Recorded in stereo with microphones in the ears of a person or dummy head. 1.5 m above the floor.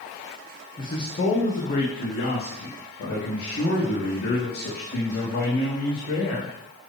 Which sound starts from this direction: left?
A man speaking, at 0.8 s.